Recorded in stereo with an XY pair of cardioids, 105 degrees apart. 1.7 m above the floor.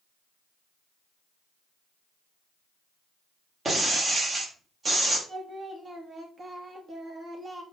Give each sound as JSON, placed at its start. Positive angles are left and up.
{"t": 3.6, "sound": "breaking glass", "azimuth_deg": -40, "distance_m": 6.0}
{"t": 5.3, "sound": "singing", "azimuth_deg": -30, "distance_m": 2.5}